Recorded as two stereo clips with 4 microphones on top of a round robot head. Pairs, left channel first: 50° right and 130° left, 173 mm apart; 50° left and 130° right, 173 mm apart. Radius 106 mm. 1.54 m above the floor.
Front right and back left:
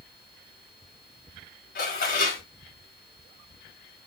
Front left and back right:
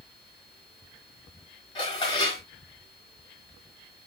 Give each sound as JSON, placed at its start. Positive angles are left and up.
{"t": 1.8, "sound": "dishes clattering", "azimuth_deg": -15, "distance_m": 6.5}